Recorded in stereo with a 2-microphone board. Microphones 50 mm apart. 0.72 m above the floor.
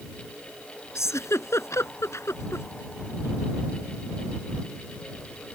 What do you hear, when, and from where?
0.9 s a giggle: 70° left (ahead or behind)